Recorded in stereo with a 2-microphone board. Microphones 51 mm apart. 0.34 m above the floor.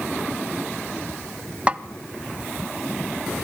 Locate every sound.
1.7 s a snare drum: 25° right (ahead or behind), 0.7 m